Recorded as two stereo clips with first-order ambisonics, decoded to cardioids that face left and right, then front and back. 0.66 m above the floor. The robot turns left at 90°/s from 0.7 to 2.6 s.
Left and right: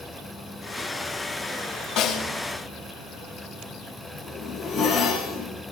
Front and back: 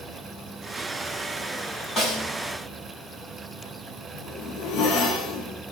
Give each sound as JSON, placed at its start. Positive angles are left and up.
{"t": 2.0, "sound": "a snare drum", "azimuth_deg": 65, "distance_m": 3.5}
{"t": 4.1, "sound": "a zipper", "azimuth_deg": 5, "distance_m": 7.0}